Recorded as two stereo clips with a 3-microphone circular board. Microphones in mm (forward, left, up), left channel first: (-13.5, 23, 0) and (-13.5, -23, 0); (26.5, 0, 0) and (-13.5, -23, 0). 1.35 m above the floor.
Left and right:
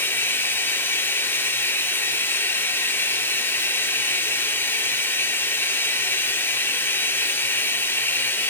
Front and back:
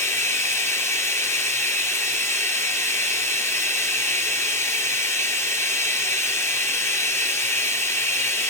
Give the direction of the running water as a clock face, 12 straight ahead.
10 o'clock.